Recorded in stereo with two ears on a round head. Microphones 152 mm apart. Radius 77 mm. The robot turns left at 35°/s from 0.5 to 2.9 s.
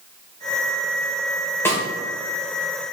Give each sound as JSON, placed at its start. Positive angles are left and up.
{"t": 1.6, "sound": "a snare drum", "side_deg": 15, "distance_m": 1.9}